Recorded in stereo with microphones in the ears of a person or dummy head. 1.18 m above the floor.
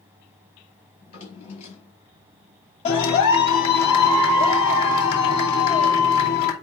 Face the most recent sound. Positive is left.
turn(degrees=35)  # may be behind; listen again after turning